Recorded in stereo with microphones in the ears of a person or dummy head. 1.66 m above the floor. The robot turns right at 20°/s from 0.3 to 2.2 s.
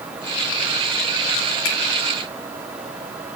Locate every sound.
1.6 s a finger snap: 70° left (ahead or behind), 3 m